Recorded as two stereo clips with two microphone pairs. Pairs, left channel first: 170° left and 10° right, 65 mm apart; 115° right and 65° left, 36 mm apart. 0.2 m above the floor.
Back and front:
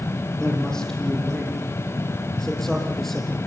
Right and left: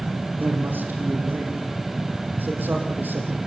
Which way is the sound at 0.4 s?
90° left.